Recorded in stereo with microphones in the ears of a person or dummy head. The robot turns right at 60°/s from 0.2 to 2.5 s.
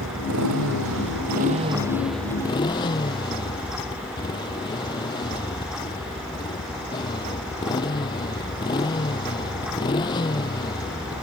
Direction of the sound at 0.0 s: 115° right.